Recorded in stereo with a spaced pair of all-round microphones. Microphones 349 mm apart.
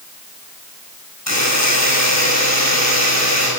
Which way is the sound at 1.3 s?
50° left (ahead or behind).